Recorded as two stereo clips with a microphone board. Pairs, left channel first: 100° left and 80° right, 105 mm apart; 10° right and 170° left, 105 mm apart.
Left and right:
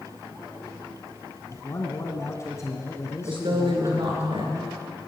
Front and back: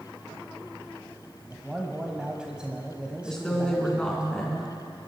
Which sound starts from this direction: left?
A man speaking, at 1.5 s.